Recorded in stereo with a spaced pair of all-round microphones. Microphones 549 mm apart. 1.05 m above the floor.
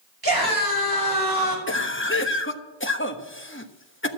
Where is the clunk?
No clunk in this recording.